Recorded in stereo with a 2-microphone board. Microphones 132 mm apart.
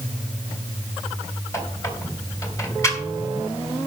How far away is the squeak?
About 3 m.